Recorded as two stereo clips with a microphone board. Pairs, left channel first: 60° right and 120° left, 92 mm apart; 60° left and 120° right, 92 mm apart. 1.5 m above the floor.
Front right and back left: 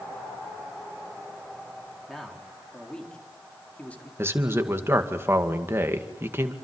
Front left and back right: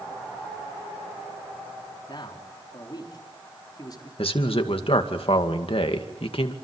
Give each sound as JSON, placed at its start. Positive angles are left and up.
{"t": 2.1, "sound": "a man speaking", "azimuth_deg": 30, "distance_m": 4.0}
{"t": 4.2, "sound": "a man speaking", "azimuth_deg": 55, "distance_m": 2.0}